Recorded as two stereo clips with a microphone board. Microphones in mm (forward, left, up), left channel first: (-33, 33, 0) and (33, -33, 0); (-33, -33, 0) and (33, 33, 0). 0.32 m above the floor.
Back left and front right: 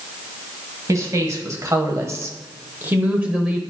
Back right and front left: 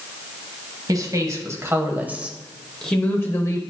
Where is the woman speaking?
5° left, 1.5 m; by 3.6 s 125° right, 1.0 m.